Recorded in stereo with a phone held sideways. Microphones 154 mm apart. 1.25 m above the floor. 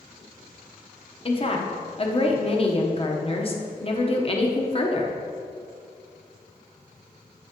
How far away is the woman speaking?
About 1.0 m.